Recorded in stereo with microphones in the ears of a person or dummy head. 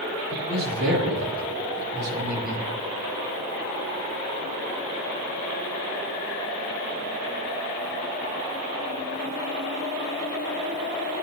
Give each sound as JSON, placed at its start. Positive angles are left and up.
{"t": 0.3, "sound": "a man speaking", "side_deg": -80, "distance_m": 3.5}